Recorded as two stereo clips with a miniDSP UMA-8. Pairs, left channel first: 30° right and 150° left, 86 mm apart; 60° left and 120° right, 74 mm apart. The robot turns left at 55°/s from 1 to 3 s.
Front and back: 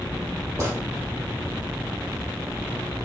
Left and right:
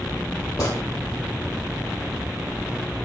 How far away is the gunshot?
About 1.9 m.